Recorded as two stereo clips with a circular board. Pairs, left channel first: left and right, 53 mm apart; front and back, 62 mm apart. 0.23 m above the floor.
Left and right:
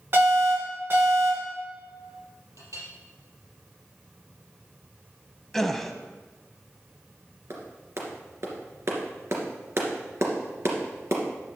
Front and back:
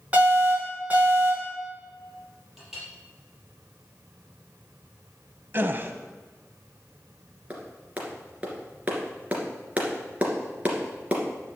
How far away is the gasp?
About 0.7 m.